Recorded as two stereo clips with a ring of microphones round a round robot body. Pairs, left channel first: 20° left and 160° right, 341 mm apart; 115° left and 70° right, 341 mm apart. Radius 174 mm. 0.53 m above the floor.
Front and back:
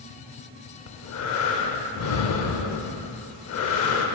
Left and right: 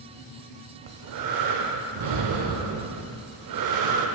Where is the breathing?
30° right, 0.5 m.